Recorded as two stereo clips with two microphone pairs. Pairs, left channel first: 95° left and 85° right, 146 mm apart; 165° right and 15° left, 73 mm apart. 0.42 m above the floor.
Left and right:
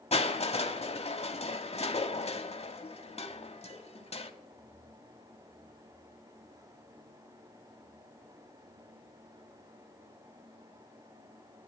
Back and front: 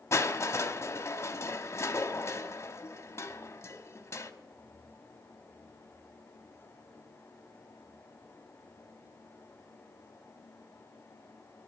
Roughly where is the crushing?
Behind left.